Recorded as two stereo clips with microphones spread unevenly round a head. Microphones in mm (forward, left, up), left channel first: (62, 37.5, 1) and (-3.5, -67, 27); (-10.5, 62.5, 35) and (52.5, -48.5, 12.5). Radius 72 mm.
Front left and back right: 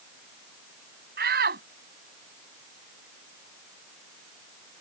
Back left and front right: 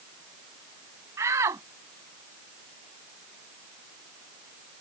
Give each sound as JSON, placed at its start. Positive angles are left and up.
{"t": 1.2, "sound": "a shout", "azimuth_deg": -135}